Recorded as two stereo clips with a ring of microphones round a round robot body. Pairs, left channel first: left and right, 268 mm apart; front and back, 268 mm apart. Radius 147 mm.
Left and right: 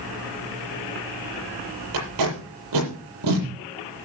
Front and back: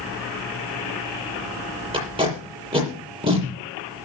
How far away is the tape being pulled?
About 7 m.